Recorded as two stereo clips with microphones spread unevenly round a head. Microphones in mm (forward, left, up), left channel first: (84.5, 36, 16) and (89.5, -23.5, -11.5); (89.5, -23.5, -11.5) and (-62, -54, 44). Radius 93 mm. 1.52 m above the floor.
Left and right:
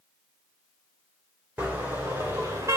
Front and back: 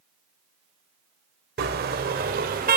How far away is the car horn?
About 3 m.